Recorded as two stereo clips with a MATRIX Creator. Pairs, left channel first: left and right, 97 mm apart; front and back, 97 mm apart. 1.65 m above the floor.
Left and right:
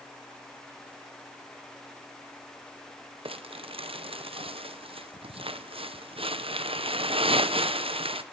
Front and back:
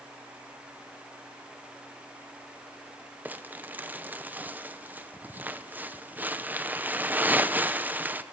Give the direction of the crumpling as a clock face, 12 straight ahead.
4 o'clock.